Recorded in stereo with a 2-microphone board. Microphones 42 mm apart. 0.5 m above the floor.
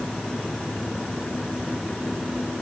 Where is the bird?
I don't hear a bird.